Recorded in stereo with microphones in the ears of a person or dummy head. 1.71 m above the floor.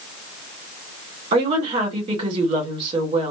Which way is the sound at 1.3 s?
25° right (ahead or behind).